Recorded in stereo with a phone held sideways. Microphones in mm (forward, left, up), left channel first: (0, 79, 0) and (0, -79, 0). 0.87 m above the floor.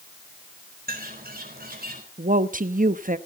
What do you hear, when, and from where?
0.9 s a bird: 70° right (ahead or behind), 4 m
2.2 s a woman speaking: 60° right (ahead or behind), 0.9 m